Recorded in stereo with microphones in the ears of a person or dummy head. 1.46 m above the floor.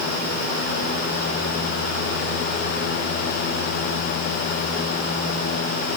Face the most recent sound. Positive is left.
No sound to turn to.